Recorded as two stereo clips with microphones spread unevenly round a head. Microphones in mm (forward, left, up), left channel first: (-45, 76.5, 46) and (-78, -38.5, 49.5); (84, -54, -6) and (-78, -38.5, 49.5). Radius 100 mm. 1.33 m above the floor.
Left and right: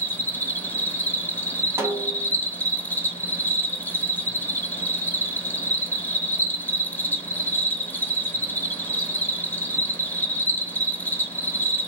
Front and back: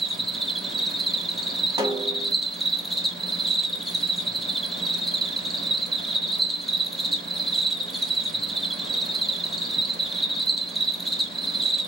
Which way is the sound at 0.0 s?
30° left.